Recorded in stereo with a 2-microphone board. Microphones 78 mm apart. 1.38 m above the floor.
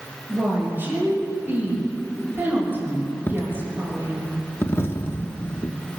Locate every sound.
0.3 s a woman speaking: 30° right (ahead or behind), 7 m
3.3 s a dropped coin: 30° left (ahead or behind), 1.0 m